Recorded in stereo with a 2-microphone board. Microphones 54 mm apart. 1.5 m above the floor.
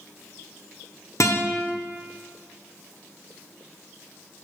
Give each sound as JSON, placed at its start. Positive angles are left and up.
{"t": 1.2, "sound": "a guitar", "side_deg": 65, "distance_m": 1.0}